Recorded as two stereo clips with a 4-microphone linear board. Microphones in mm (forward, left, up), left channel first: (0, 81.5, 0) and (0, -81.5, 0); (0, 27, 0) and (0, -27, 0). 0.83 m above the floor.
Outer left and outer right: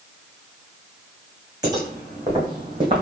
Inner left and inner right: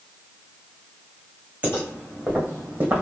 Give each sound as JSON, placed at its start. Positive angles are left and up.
{"t": 1.6, "sound": "footsteps", "side_deg": -25, "distance_m": 2.5}